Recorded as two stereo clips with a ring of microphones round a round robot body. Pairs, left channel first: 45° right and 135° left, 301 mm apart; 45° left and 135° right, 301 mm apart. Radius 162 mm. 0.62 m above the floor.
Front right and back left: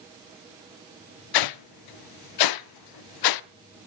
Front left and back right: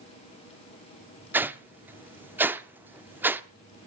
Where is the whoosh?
50° right, 0.6 m.